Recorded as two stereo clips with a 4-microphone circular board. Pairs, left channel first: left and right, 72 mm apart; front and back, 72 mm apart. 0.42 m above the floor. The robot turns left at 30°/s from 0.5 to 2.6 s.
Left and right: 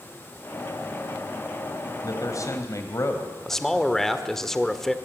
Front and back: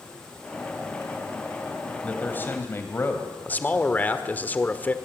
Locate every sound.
2.0 s a man speaking: 70° left, 2.5 m; by 4.0 s 50° left, 2.5 m
3.5 s a man speaking: 10° left, 1.5 m